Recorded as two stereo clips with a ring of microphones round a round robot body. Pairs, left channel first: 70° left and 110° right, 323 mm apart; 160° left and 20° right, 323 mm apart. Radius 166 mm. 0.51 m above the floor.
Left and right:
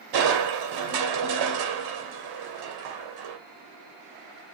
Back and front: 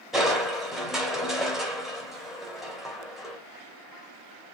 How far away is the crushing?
About 2.5 m.